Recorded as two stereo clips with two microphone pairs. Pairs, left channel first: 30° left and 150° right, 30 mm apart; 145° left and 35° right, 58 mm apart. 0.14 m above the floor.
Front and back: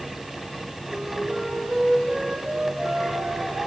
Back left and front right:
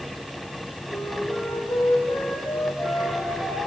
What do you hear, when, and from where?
0.9 s a flute: 155° left, 5.5 m